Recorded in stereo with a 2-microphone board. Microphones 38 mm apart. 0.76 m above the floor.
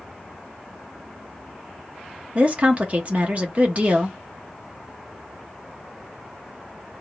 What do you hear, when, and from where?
2.4 s a woman speaking: 40° right (ahead or behind), 0.9 m